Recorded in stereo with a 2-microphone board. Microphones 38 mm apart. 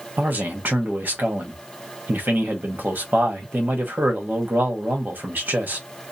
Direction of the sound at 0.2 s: 60° right (ahead or behind).